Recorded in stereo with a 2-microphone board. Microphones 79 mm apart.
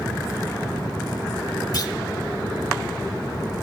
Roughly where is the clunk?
Left.